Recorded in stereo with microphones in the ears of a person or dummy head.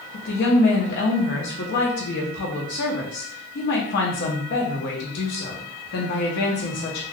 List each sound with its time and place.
0.1 s a woman speaking: 60° left (ahead or behind), 0.8 m